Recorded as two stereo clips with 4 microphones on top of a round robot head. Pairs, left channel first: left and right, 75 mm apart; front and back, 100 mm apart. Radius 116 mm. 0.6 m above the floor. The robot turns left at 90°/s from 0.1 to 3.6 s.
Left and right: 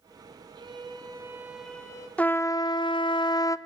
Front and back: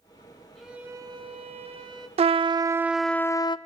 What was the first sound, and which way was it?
A violin, 85° right.